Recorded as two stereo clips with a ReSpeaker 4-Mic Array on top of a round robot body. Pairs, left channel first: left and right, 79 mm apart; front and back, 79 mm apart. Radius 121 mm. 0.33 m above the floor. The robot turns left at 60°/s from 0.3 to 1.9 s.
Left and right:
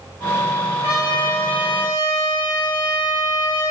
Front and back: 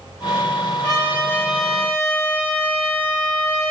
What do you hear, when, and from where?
0.8 s a trumpet: 130° left, 2.0 m; by 3.7 s 65° left, 2.0 m